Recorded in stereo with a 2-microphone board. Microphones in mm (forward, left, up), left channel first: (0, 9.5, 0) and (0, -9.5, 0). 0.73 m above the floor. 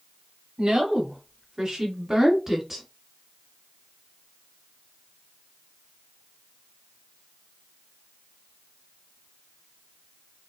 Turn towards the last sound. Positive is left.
turn(degrees=-15)  # may be behind; listen again after turning